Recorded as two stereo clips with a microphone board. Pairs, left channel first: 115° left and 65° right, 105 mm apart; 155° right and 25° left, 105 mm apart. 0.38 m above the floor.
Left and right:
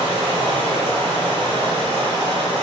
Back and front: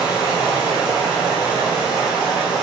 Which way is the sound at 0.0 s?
60° right.